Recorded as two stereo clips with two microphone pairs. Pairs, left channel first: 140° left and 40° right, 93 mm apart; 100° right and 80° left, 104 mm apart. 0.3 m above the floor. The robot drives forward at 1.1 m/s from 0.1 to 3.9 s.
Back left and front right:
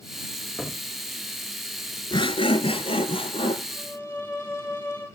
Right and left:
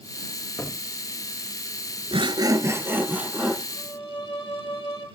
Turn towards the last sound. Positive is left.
turn(degrees=-145)